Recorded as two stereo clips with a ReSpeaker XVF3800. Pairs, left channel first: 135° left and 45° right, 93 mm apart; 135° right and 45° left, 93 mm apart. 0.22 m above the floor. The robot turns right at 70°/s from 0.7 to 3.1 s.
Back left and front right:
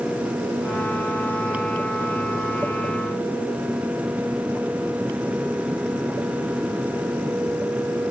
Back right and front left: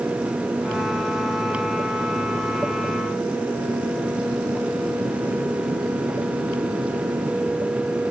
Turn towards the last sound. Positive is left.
No sound to turn to.